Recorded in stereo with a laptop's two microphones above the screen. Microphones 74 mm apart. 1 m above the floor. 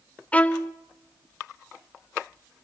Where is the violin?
20° left (ahead or behind), 0.6 m.